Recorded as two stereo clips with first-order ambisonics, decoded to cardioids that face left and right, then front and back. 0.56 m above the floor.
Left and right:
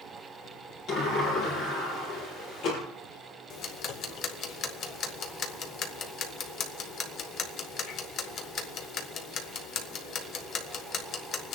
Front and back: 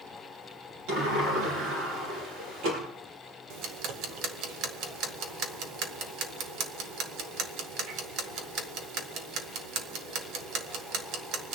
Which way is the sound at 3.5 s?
140° left.